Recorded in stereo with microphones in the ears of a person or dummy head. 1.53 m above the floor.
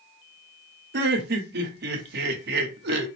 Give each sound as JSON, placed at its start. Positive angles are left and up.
{"t": 0.9, "sound": "laughter", "side_deg": -60, "distance_m": 1.0}